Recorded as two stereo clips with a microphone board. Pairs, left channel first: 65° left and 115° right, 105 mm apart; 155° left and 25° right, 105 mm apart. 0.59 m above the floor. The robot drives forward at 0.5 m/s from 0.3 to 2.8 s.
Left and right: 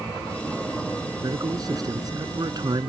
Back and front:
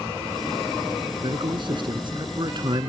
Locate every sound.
1.2 s a man speaking: 60° right; by 2.9 s 65° right